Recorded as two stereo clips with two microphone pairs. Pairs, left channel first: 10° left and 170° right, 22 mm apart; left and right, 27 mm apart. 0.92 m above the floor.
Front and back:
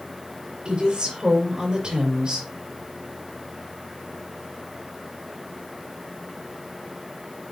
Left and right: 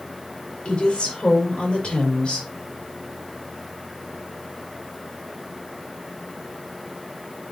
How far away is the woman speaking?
About 4.5 m.